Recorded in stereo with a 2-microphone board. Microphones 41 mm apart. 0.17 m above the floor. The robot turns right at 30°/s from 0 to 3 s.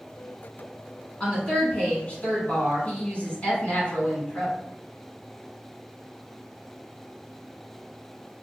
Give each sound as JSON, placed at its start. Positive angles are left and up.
{"t": 1.2, "sound": "a woman speaking", "azimuth_deg": 45, "distance_m": 1.7}